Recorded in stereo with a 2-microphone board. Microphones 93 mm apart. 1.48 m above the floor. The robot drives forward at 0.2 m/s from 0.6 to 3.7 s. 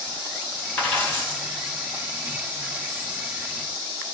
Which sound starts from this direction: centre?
A dropped coin, at 0.8 s.